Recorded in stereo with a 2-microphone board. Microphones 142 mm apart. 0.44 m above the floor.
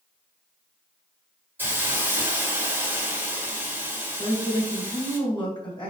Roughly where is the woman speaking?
Left.